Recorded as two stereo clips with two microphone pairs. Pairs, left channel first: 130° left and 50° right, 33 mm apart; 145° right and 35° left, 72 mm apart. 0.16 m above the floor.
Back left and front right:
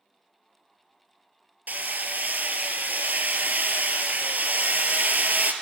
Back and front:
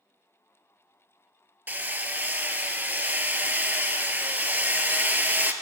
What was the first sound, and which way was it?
Hammering, 30° right.